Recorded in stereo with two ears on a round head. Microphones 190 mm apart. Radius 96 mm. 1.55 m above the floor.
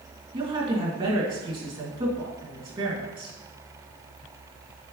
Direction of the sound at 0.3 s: 25° right (ahead or behind).